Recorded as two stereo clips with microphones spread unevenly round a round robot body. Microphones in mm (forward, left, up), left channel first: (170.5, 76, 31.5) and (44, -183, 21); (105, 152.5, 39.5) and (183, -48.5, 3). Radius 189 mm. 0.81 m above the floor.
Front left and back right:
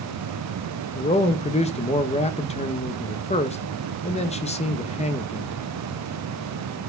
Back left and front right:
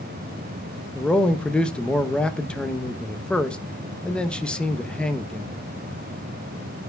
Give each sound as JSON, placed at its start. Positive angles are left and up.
{"t": 0.9, "sound": "a man speaking", "azimuth_deg": 10, "distance_m": 0.8}